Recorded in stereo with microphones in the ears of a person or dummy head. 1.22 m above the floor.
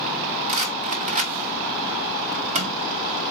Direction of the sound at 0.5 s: 30° right (ahead or behind).